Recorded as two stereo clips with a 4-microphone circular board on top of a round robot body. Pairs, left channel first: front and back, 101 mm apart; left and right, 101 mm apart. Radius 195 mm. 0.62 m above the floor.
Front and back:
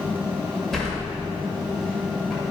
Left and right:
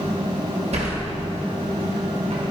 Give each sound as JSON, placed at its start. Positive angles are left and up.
{"t": 0.7, "sound": "a sliding door", "azimuth_deg": -85, "distance_m": 1.7}